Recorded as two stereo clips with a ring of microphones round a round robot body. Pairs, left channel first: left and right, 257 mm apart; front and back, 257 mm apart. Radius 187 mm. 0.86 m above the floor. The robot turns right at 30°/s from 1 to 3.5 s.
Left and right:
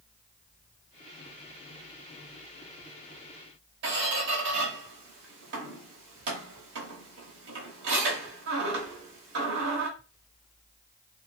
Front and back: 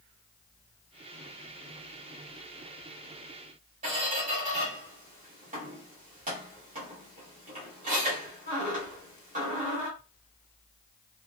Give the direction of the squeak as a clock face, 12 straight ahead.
4 o'clock.